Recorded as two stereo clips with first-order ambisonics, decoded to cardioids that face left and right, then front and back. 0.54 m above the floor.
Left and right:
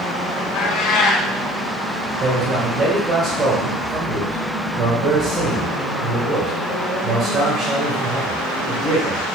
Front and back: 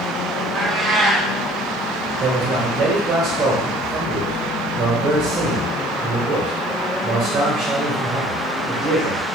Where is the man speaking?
140° right, 2.5 m.